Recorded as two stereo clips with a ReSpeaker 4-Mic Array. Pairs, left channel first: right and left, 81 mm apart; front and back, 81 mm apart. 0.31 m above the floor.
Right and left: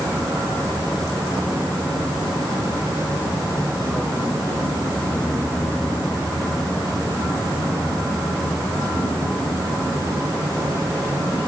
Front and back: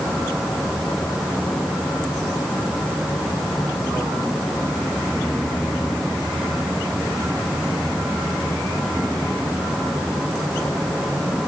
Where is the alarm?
I don't hear an alarm.